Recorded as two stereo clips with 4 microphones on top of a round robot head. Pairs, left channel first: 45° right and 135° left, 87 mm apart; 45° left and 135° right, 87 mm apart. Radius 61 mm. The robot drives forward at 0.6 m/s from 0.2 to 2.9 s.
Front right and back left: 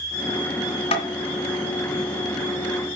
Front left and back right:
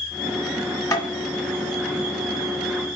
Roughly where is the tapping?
Ahead.